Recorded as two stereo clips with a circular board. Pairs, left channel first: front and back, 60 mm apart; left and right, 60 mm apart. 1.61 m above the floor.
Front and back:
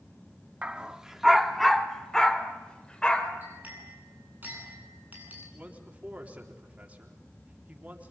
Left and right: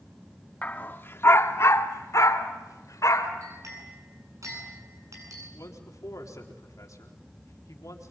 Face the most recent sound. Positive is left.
turn(degrees=115)